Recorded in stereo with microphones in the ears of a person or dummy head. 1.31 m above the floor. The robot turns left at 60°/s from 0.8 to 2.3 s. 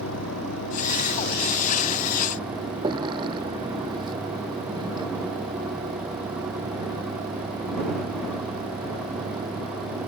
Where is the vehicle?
70° left; by 10.1 s 20° right.